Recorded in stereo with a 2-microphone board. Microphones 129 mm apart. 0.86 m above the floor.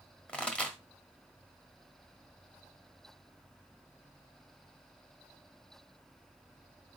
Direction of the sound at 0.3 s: 10° left (ahead or behind).